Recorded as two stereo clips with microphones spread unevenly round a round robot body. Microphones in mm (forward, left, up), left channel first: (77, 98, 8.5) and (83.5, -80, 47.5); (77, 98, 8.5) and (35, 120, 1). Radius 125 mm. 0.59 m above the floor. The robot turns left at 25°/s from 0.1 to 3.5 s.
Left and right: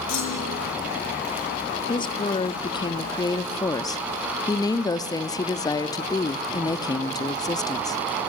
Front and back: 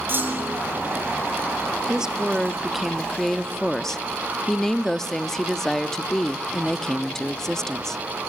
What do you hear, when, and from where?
0.1 s a clunk: 110° left, 8.5 m; by 0.6 s 95° left, 8.5 m
1.9 s a woman speaking: 100° left, 0.7 m; by 8.0 s 60° left, 0.7 m